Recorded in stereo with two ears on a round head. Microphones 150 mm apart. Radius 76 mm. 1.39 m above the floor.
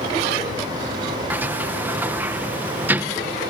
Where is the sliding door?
10° right (ahead or behind).